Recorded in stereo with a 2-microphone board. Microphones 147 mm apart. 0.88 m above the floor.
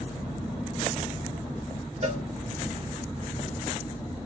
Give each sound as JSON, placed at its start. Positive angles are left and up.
{"t": 2.0, "sound": "a cowbell", "side_deg": -55, "distance_m": 1.6}